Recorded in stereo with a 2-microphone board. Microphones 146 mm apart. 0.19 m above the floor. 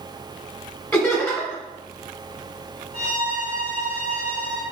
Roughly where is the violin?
Right.